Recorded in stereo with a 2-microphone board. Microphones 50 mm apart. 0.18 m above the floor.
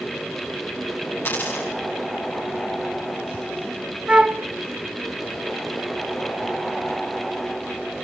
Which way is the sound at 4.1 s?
25° right (ahead or behind).